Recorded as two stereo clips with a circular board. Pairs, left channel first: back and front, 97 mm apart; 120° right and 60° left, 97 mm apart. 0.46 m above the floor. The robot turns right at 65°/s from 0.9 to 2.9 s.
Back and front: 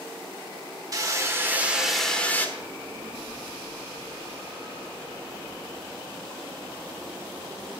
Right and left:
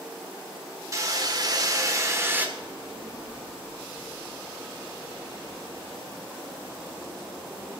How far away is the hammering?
About 1.2 m.